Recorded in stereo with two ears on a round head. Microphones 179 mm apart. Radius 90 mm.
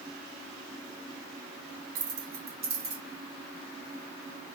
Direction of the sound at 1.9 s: 40° right (ahead or behind).